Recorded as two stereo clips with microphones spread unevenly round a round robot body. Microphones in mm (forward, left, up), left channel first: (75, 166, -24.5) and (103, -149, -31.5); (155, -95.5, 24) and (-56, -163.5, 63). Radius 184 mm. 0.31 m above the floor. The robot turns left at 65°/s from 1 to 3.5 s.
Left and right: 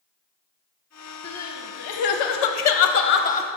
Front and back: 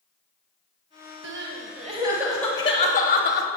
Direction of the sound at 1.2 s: 170° left.